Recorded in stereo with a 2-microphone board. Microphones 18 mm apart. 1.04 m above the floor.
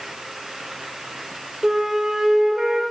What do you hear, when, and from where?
1.6 s a flute: 40° right (ahead or behind), 1.6 m